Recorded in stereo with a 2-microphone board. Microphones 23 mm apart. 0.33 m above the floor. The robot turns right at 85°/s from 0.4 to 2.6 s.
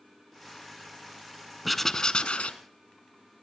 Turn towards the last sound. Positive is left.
turn(degrees=80)